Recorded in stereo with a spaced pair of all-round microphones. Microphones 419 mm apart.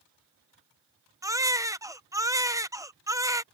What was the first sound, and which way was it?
A baby crying, 10° right (ahead or behind).